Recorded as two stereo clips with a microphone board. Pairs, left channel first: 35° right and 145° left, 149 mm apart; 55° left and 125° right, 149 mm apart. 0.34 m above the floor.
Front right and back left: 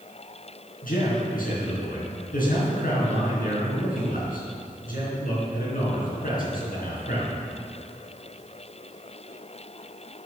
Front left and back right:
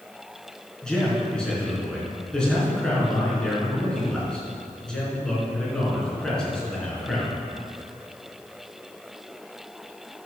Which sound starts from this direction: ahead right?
A man speaking, at 0.8 s.